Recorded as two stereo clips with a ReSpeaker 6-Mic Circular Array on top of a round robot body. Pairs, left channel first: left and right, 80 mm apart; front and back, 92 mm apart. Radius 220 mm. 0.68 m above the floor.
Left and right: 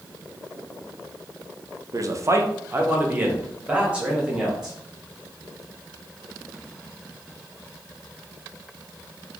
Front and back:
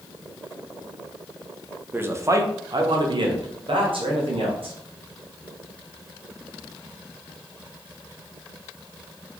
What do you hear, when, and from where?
1.9 s a man speaking: 115° right, 0.8 m; by 4.8 s 170° right, 1.8 m